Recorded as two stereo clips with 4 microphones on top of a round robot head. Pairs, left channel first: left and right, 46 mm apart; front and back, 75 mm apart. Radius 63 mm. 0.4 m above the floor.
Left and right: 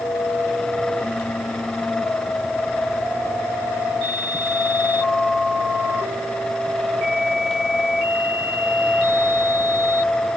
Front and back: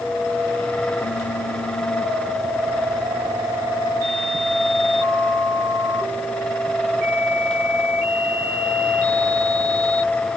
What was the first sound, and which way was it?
Only background noise.